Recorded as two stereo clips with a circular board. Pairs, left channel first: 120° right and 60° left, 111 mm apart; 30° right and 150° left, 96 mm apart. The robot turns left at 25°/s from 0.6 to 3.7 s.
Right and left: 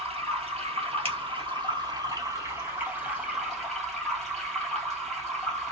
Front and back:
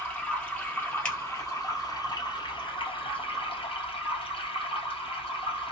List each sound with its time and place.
0.0 s running water: 45° left, 2 m; by 5.7 s 30° right, 2 m
1.1 s a finger snap: 50° left, 2.5 m